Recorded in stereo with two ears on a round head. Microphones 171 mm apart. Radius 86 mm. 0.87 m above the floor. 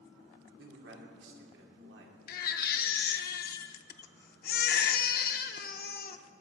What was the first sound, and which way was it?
A man speaking, 65° right (ahead or behind).